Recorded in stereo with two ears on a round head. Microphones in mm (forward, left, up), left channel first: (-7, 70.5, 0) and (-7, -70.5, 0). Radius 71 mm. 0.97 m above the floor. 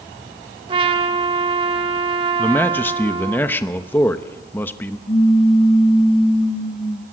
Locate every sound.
0.7 s a trumpet: 30° right (ahead or behind), 1.4 m
2.4 s a man speaking: 15° left (ahead or behind), 0.9 m
5.1 s a pop: 35° left (ahead or behind), 2.5 m